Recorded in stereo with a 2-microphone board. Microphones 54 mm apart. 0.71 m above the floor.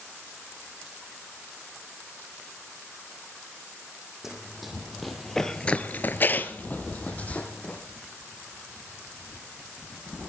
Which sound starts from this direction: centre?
Running footsteps, at 4.2 s.